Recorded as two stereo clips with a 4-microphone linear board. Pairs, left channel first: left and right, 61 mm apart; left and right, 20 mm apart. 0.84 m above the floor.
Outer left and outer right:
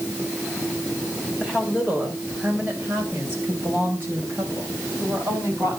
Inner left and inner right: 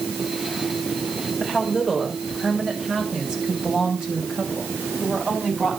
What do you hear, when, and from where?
1.4 s a woman speaking: 15° right (ahead or behind), 4 m; by 5.8 s 50° right (ahead or behind), 5.5 m